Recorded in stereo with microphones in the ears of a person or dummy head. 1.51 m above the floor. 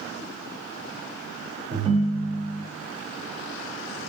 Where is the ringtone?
30° right (ahead or behind), 0.8 m.